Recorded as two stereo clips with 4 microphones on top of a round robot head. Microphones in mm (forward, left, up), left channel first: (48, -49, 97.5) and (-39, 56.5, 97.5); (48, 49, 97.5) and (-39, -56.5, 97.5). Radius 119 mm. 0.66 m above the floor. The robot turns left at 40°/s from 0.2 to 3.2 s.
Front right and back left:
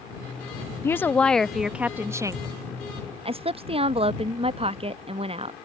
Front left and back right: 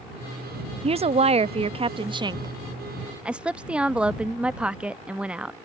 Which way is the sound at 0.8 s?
115° right.